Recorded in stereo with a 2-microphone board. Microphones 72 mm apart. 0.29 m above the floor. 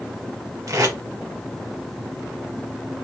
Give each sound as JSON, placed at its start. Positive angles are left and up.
{"t": 0.7, "sound": "tape being pulled", "side_deg": -55, "distance_m": 1.9}